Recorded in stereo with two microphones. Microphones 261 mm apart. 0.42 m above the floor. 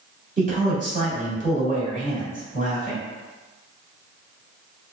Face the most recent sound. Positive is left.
turn(degrees=-30)  # may be behind; listen again after turning